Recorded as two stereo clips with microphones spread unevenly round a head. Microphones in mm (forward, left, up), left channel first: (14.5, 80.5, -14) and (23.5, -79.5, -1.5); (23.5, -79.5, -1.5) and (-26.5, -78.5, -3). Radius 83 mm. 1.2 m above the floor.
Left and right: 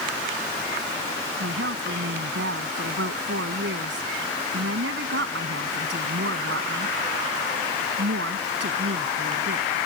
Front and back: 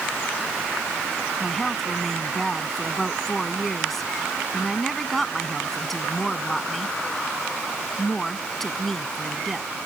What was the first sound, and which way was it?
A woman speaking, 85° right.